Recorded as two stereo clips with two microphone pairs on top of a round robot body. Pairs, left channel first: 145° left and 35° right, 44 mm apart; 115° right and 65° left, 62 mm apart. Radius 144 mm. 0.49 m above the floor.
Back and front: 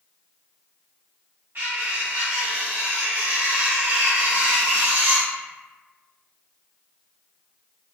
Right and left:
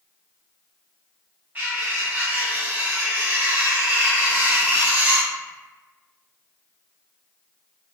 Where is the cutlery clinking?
5° left, 1.8 m.